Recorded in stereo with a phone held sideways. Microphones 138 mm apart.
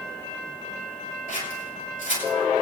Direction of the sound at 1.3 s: 80° left.